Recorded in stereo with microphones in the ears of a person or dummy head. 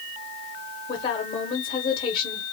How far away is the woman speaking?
About 1.1 m.